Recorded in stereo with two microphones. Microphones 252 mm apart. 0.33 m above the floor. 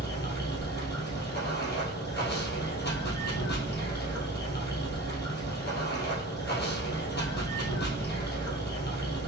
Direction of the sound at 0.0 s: 45° left (ahead or behind).